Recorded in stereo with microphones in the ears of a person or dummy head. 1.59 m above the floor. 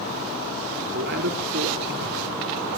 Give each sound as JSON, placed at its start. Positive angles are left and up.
{"t": 0.9, "sound": "a man speaking", "side_deg": -60, "distance_m": 5.5}